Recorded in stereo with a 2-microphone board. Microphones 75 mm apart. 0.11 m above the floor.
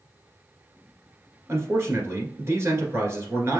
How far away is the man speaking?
About 1.6 m.